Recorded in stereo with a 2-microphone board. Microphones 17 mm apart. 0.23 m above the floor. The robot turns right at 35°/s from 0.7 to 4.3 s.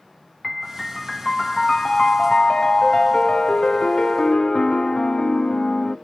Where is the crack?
No crack in this recording.